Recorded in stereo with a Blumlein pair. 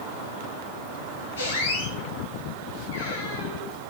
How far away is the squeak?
About 7 m.